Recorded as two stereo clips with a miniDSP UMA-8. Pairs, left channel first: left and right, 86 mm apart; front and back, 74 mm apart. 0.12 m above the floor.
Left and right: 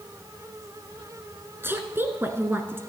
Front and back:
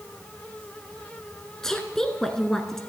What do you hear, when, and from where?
1.6 s a woman speaking: 75° right, 1.1 m